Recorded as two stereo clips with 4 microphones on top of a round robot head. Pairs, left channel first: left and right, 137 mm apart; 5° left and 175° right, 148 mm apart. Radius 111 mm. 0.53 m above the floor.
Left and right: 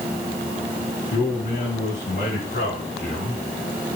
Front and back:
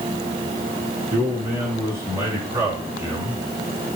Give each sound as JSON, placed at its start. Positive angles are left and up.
{"t": 1.1, "sound": "a man speaking", "azimuth_deg": 115, "distance_m": 6.0}